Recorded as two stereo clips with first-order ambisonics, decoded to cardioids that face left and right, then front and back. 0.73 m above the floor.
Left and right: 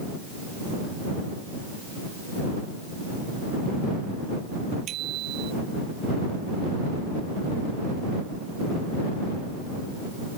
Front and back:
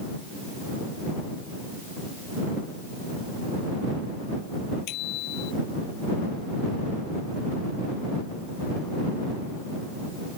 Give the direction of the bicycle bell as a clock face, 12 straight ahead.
1 o'clock.